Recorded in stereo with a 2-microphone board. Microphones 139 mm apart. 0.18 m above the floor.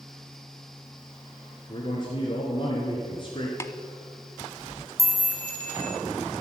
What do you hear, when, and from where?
1.7 s a man speaking: 40° left (ahead or behind), 2 m
3.6 s tapping: 20° left (ahead or behind), 0.5 m
5.0 s a chime: 25° right (ahead or behind), 2.0 m